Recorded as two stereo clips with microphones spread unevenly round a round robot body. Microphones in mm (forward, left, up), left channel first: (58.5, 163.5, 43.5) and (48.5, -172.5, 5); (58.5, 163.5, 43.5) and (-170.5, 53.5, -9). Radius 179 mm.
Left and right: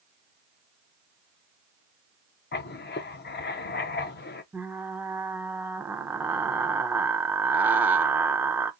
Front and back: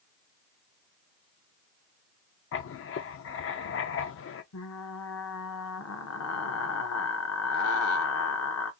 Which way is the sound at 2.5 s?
35° left.